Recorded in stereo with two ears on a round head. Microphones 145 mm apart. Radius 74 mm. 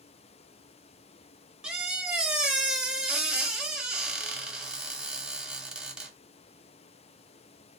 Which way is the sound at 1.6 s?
5° right (ahead or behind).